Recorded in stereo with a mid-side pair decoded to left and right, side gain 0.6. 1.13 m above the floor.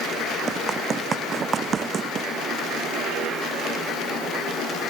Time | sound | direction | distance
0.5 | running footsteps | 35° right | ?